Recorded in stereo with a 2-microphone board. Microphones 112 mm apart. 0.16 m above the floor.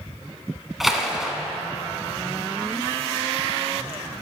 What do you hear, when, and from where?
0.8 s a splash: centre (ahead or behind), 0.7 m